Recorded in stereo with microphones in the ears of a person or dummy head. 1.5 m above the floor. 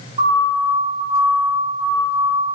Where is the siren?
35° right (ahead or behind), 4.5 m; by 2.6 s 5° right (ahead or behind), 5.5 m.